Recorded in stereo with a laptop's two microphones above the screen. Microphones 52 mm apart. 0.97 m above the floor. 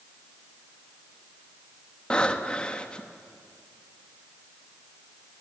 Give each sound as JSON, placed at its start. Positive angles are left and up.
{"t": 2.1, "sound": "breathing", "side_deg": 20, "distance_m": 1.1}